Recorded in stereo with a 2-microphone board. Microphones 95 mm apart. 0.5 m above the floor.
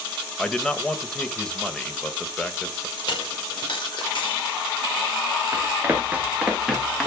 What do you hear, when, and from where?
0.4 s a man speaking: 10° left (ahead or behind), 2 m
3.0 s a dropped coin: 60° left (ahead or behind), 5.5 m
5.5 s running footsteps: 25° right (ahead or behind), 5 m; by 7.1 s 5° left (ahead or behind), 4.5 m